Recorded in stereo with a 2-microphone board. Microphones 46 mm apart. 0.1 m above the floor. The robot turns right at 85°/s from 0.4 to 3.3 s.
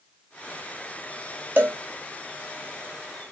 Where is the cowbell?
45° right (ahead or behind), 1.3 m; by 1.8 s 60° right (ahead or behind), 1.3 m.